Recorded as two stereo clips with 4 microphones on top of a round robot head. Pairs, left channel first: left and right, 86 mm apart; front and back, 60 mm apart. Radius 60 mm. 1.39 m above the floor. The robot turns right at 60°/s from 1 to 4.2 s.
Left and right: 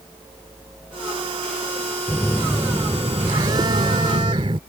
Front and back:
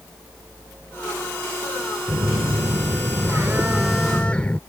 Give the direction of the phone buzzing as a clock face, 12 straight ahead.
7 o'clock.